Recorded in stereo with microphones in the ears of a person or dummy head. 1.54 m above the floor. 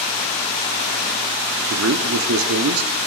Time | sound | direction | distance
1.7 | a man speaking | 80° right | 0.7 m